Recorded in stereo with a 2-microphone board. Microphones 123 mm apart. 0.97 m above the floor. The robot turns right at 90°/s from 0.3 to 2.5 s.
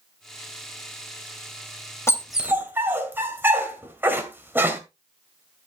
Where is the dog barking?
20° left (ahead or behind), 2.5 m; by 4.8 s 15° right (ahead or behind), 2.5 m.